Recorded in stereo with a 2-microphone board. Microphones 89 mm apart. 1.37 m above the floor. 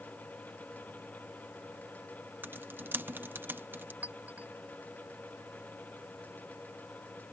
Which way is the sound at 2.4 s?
20° right (ahead or behind).